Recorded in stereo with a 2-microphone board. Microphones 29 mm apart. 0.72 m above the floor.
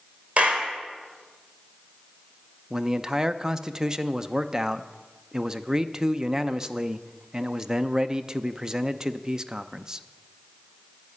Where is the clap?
50° right (ahead or behind), 2.5 m.